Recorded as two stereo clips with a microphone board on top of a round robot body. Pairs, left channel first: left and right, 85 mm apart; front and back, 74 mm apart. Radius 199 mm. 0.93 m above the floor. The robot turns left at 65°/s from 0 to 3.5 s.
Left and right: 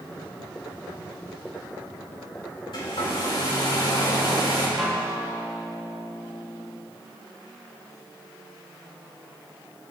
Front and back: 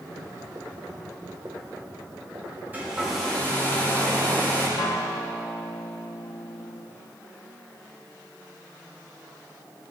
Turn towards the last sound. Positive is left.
turn(degrees=5)